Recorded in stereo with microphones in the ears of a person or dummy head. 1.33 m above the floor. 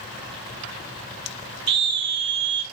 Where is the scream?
60° right (ahead or behind), 1.0 m.